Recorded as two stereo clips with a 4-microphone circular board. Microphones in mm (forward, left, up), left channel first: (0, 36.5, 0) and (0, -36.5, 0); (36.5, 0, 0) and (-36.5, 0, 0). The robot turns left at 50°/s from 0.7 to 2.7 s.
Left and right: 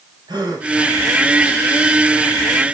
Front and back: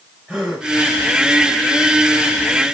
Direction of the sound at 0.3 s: 95° right.